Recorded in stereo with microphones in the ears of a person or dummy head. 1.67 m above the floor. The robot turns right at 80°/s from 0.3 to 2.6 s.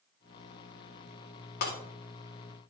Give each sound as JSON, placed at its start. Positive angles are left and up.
{"t": 1.6, "sound": "breaking glass", "side_deg": 50, "distance_m": 3.0}